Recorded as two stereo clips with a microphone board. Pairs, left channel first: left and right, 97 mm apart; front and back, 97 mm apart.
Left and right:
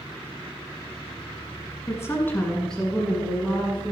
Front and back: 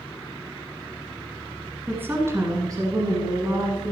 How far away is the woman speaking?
About 1.4 m.